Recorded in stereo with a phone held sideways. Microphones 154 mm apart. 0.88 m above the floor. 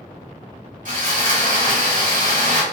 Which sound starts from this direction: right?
Sawing, at 0.8 s.